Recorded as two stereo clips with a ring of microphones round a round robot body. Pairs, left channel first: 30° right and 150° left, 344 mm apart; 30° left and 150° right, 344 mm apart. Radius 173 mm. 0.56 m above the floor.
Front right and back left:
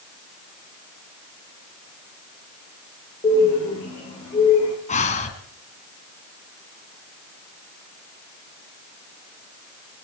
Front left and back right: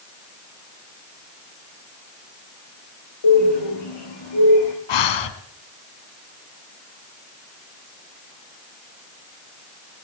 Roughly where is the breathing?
Ahead left.